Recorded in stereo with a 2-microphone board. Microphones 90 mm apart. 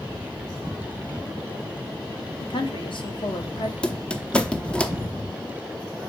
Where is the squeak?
10° left (ahead or behind), 0.8 m.